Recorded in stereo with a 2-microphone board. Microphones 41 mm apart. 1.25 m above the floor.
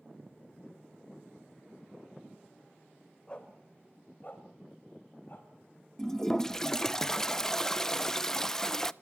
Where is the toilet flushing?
10° left (ahead or behind), 0.5 m.